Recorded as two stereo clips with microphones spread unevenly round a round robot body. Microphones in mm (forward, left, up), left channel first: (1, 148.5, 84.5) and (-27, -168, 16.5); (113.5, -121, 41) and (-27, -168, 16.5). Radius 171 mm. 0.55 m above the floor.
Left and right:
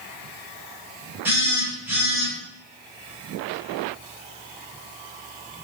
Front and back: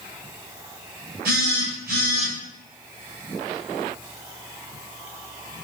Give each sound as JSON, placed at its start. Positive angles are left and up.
{"t": 1.2, "sound": "a phone buzzing", "azimuth_deg": -175, "distance_m": 1.3}